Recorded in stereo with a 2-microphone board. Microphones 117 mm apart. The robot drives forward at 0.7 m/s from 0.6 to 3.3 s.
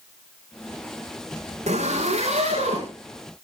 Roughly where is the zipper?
Right.